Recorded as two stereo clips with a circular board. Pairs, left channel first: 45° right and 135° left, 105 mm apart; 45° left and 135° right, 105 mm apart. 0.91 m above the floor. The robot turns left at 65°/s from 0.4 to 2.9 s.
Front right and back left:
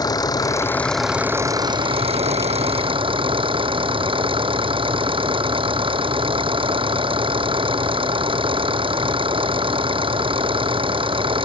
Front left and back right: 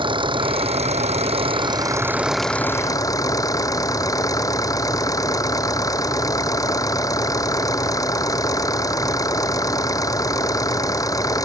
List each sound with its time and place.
0.0 s an engine running: 95° right; by 11.5 s 100° left